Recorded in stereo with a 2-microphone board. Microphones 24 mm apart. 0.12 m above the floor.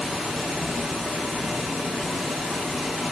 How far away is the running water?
About 7 m.